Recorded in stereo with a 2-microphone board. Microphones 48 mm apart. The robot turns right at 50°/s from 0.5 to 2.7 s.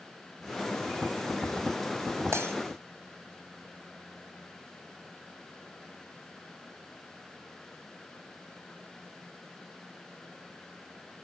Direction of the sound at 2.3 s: 75° right (ahead or behind).